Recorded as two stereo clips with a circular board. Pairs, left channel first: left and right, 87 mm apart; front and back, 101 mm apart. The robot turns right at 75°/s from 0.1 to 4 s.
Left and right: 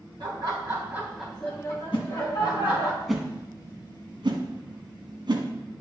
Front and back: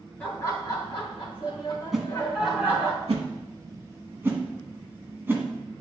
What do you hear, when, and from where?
0.2 s laughter: 80° right, 3 m; by 2.9 s 125° left, 3 m
1.9 s a whoosh: 90° left, 1.3 m; by 5.5 s 115° right, 1.3 m